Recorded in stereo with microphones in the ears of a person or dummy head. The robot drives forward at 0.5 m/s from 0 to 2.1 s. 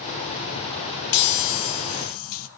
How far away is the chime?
About 0.9 m.